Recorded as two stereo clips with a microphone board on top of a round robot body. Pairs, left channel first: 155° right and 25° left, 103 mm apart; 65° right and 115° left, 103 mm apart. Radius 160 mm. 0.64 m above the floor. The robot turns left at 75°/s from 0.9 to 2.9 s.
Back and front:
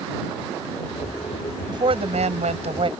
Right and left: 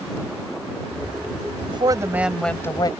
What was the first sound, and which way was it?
A woman speaking, 75° left.